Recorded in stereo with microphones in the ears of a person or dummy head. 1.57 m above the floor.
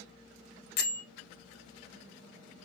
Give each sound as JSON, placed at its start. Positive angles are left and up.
{"t": 0.8, "sound": "a bell", "side_deg": 60, "distance_m": 1.1}